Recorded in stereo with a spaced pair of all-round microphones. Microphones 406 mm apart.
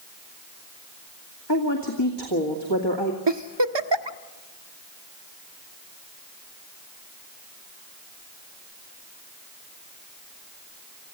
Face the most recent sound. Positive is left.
turn(degrees=-85)